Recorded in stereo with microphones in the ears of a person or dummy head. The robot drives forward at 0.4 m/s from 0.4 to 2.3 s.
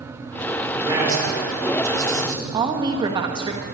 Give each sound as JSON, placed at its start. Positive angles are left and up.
{"t": 0.7, "sound": "a man speaking", "side_deg": -20, "distance_m": 4.5}
{"t": 2.5, "sound": "a woman speaking", "side_deg": -20, "distance_m": 1.2}